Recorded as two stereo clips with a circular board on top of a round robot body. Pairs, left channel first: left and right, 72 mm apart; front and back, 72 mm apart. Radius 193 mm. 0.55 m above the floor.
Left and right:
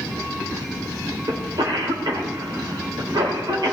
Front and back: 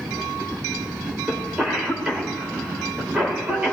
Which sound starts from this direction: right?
A cough, at 1.3 s.